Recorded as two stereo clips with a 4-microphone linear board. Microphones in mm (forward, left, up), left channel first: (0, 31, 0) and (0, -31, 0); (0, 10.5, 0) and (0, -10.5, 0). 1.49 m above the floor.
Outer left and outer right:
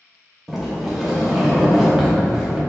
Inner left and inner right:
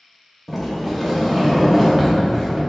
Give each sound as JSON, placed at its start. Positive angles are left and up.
{"t": 0.5, "sound": "a sliding door", "side_deg": -5, "distance_m": 0.7}